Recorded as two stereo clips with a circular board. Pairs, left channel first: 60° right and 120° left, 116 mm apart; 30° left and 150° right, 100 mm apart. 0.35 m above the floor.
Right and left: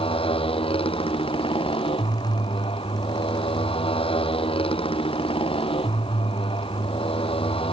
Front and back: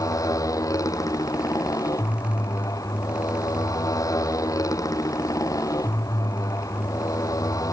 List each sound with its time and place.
0.0 s a motorcycle: 25° right